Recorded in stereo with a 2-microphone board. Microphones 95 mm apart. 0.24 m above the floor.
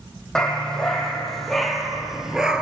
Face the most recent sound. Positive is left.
turn(degrees=-10)  # may be behind; listen again after turning